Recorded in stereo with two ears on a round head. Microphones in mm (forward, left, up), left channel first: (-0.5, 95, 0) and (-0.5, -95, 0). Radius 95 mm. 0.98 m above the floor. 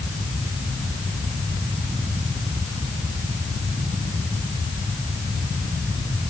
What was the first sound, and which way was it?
Only background noise.